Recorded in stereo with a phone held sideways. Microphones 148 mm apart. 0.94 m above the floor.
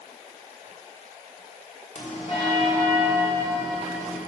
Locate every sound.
1.9 s a bell: 45° left (ahead or behind), 1.4 m